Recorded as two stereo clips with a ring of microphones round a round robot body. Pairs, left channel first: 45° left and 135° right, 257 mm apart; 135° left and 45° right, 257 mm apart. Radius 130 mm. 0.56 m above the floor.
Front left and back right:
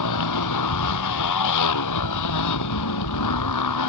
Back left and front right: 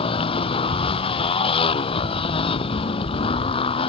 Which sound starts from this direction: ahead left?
A motorcycle, at 0.0 s.